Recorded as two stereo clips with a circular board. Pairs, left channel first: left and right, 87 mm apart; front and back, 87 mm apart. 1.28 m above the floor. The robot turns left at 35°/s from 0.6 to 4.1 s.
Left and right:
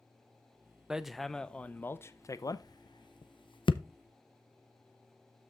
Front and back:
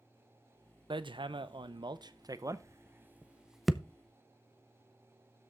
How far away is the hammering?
About 0.6 m.